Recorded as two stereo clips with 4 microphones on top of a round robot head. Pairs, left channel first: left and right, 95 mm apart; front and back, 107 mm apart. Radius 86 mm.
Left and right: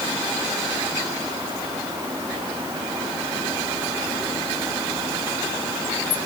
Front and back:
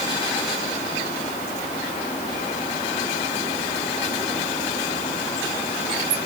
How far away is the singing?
No singing in this recording.